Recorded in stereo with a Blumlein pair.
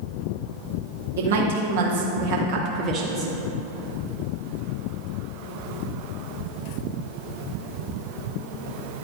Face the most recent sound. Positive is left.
turn(degrees=-10)